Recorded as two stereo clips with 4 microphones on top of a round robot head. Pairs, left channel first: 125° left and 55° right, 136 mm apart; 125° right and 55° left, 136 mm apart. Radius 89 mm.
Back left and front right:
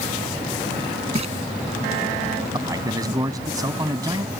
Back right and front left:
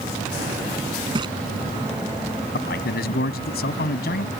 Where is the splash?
5° right.